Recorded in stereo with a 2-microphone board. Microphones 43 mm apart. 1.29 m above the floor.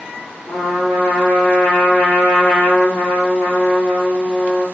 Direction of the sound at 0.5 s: 55° left (ahead or behind).